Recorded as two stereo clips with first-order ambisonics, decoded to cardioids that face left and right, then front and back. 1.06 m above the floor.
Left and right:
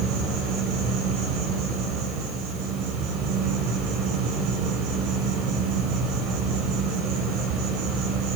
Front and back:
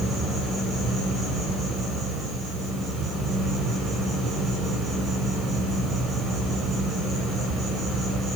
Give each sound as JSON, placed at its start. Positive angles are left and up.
{"t": 0.0, "sound": "an insect", "azimuth_deg": -110, "distance_m": 7.5}